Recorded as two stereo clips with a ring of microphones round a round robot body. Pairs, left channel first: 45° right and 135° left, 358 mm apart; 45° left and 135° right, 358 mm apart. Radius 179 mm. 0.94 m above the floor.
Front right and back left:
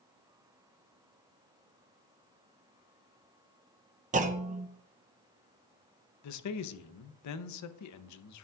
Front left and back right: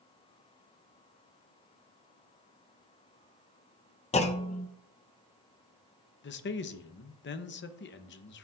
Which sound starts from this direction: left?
A clunk, at 4.1 s.